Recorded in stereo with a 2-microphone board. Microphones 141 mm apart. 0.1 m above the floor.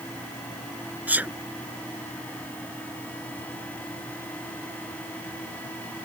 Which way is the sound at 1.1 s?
10° right (ahead or behind).